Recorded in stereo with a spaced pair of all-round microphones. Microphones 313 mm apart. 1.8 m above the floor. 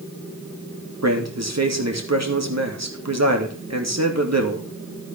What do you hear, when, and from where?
1.0 s a man speaking: 55° right (ahead or behind), 3 m